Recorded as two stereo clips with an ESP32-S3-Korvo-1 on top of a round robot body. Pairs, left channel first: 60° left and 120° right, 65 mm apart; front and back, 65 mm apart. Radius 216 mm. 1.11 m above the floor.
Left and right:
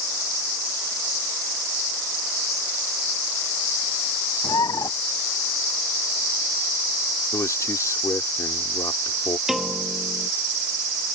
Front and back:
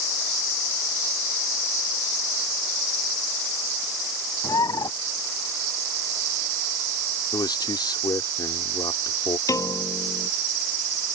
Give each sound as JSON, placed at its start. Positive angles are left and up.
{"t": 4.4, "sound": "a bird", "azimuth_deg": 30}
{"t": 7.3, "sound": "a man speaking", "azimuth_deg": 15}
{"t": 9.5, "sound": "a piano", "azimuth_deg": -35}